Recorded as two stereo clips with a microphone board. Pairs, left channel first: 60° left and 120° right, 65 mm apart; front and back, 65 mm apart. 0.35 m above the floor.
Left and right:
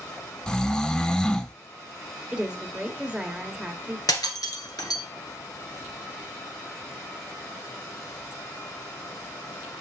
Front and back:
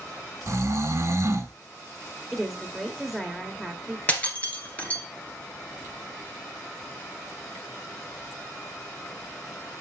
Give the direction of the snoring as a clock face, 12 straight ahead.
7 o'clock.